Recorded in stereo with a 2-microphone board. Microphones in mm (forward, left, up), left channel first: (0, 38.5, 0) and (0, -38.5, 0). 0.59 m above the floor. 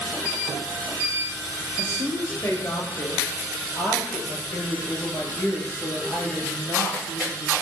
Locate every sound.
1.8 s a woman speaking: 35° left (ahead or behind), 9.5 m; by 7.5 s 15° left (ahead or behind), 10.5 m